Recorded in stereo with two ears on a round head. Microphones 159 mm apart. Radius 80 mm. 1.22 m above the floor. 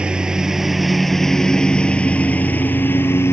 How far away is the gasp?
I don't hear a gasp.